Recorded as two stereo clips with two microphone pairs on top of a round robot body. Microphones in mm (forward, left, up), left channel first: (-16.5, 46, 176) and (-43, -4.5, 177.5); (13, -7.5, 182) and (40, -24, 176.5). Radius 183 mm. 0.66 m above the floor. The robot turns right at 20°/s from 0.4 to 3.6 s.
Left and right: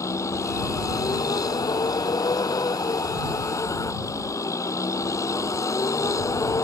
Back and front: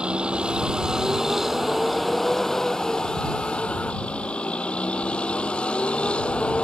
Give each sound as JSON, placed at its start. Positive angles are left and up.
{"t": 0.0, "sound": "a vehicle", "azimuth_deg": 25}